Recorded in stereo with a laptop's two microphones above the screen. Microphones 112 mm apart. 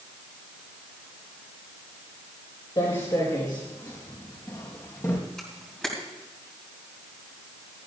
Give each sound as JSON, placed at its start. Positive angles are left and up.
{"t": 2.8, "sound": "footsteps", "side_deg": 50, "distance_m": 4.5}
{"t": 5.4, "sound": "a camera shutter", "side_deg": 5, "distance_m": 3.0}